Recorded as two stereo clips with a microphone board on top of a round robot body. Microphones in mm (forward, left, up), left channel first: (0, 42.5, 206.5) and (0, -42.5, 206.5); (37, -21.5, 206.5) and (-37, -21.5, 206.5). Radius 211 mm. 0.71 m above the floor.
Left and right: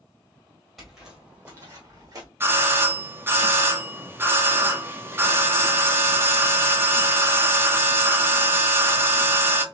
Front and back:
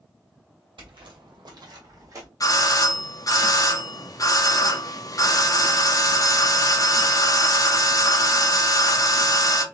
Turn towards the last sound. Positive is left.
turn(degrees=-30)